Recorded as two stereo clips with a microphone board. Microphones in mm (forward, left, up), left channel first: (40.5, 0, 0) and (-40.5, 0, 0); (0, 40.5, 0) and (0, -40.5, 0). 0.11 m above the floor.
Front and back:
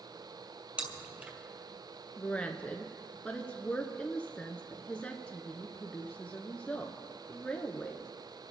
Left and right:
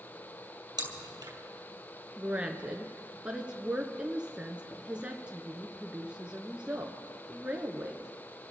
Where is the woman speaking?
45° right, 1.1 m.